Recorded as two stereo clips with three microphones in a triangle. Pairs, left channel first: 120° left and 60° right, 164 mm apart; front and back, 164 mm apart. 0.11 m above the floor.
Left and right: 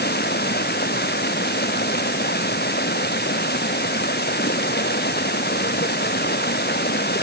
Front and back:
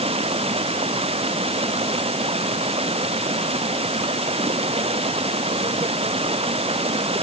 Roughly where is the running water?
Behind left.